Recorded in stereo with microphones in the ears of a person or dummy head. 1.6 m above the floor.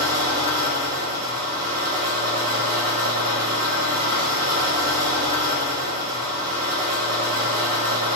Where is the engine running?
80° right, 3 m.